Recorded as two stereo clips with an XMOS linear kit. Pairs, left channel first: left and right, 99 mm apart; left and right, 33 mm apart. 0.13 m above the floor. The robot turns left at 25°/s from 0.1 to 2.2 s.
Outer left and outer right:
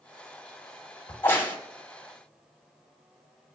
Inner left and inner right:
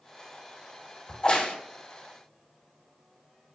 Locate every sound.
1.1 s a crack: 20° left (ahead or behind), 1.0 m; by 1.6 s 35° left (ahead or behind), 1.0 m